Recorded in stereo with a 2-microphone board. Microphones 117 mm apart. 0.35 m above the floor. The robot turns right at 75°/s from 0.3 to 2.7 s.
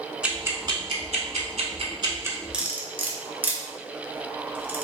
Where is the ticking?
10° right (ahead or behind), 0.8 m; by 2.4 s 15° right (ahead or behind), 0.8 m.